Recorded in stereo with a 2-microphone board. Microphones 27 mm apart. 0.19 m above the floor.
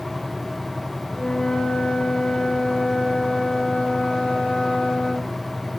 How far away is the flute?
About 1.4 m.